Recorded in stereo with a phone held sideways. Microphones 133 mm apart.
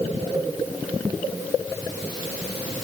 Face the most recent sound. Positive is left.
No sound to turn to.